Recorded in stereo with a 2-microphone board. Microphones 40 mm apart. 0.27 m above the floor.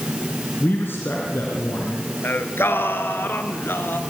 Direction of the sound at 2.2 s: 75° left (ahead or behind).